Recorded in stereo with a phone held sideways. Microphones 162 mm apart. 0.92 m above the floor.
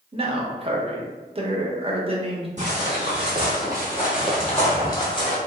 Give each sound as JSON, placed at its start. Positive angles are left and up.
{"t": 0.1, "sound": "a man speaking", "side_deg": -35, "distance_m": 0.6}
{"t": 2.6, "sound": "footsteps", "side_deg": -45, "distance_m": 1.8}